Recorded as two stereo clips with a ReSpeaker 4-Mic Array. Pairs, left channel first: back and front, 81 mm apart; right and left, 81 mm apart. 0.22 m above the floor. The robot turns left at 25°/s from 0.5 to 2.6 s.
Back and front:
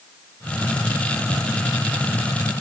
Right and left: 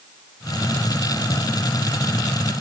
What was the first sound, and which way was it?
Only background noise.